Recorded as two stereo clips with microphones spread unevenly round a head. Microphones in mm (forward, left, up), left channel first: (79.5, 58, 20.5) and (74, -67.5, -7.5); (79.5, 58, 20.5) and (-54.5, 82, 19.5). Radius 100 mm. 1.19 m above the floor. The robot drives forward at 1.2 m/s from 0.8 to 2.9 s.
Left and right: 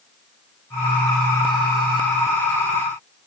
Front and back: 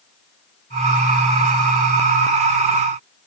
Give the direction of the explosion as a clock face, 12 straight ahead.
No explosion in this recording.